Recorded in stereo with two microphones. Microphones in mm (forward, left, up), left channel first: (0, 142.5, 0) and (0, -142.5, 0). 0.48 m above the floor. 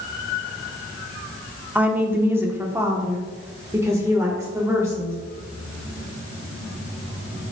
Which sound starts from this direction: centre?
A woman speaking, at 1.8 s.